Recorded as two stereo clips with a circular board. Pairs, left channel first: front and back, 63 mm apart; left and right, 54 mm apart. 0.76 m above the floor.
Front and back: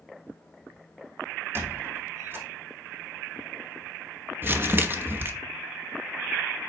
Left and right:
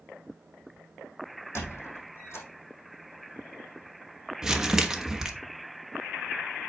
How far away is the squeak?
About 4.5 m.